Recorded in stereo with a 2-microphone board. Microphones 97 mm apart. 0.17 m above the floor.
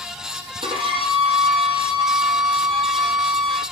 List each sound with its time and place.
0.6 s a violin: 55° right (ahead or behind), 6 m